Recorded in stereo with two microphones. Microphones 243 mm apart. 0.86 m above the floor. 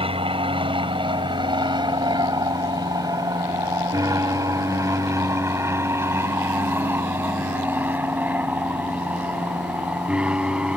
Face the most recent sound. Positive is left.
turn(degrees=-5)  # may be behind; listen again after turning